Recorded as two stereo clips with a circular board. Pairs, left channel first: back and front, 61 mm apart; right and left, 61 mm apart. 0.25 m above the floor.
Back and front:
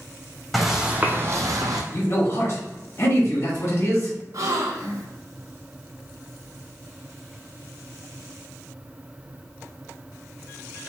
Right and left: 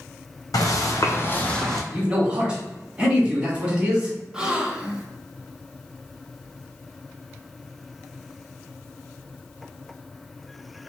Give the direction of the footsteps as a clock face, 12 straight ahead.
3 o'clock.